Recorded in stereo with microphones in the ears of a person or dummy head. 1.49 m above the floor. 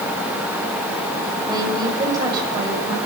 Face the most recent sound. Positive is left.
turn(degrees=-20)  # may be behind; listen again after turning